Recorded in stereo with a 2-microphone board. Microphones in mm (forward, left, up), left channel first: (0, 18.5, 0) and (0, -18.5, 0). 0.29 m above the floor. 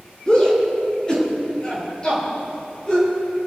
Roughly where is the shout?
Centre.